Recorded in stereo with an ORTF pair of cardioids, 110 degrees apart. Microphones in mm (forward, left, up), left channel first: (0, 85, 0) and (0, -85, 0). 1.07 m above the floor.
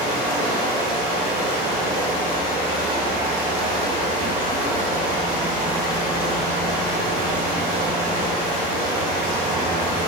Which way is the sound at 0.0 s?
70° right.